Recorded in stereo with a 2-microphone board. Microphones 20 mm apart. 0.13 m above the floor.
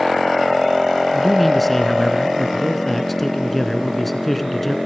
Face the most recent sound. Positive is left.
turn(degrees=10)  # may be behind; listen again after turning